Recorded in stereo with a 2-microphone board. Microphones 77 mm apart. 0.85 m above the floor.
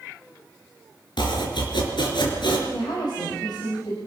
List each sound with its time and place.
1.2 s chopping: 80° left, 4.5 m
2.7 s a woman speaking: 70° left (ahead or behind), 5.5 m